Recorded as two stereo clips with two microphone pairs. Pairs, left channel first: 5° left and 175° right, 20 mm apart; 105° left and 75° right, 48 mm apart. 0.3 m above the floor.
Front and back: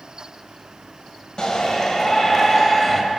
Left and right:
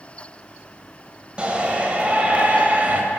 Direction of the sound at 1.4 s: 20° right.